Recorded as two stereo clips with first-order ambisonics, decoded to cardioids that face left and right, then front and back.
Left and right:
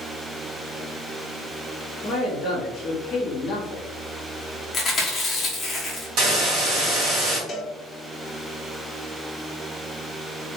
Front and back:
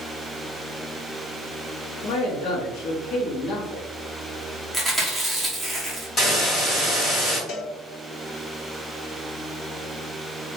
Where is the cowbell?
25° left, 0.6 m.